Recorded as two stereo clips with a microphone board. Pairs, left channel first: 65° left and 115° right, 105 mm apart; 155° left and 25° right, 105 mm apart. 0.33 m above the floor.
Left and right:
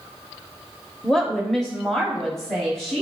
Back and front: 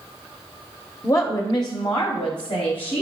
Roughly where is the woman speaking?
Behind left.